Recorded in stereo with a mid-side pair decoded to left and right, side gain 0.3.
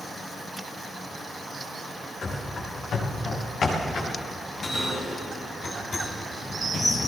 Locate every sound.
2.2 s running footsteps: 65° left, 8.5 m; by 4.1 s 70° left, 7 m
4.4 s a bell: 65° left, 8.5 m